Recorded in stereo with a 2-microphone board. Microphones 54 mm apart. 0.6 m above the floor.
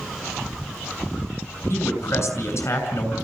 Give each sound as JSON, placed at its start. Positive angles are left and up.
{"t": 1.7, "sound": "a man speaking", "side_deg": 55, "distance_m": 6.0}